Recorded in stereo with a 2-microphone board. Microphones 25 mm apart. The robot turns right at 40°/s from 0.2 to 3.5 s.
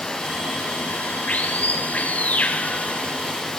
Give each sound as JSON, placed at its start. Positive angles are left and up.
{"t": 0.0, "sound": "running water", "azimuth_deg": 30, "distance_m": 3.0}